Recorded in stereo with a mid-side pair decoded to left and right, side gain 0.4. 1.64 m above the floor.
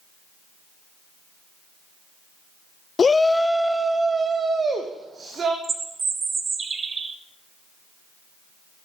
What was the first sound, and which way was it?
A shout, 45° left.